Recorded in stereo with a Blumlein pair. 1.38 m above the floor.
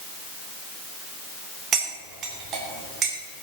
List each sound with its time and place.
1.7 s cutlery clinking: 30° right, 2.5 m